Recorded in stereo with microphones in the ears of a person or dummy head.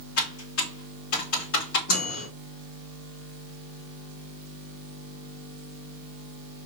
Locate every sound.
0.2 s typing on a keyboard: 85° left, 2.5 m
1.9 s a microwave: 80° left, 3 m